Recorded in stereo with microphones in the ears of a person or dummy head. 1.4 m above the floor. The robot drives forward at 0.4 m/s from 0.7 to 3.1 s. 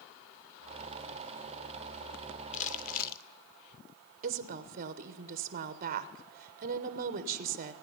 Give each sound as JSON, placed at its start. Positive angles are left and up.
{"t": 2.5, "sound": "crumpling", "side_deg": 35, "distance_m": 0.7}
{"t": 4.2, "sound": "a woman speaking", "side_deg": -40, "distance_m": 0.8}